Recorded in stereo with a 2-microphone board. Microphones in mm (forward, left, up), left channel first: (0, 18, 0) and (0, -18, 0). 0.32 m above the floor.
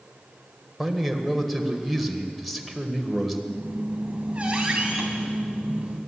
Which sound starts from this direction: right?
A squeak, at 3.5 s.